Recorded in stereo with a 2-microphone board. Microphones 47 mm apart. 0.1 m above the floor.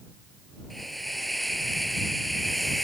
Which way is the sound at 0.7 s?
Centre (ahead or behind).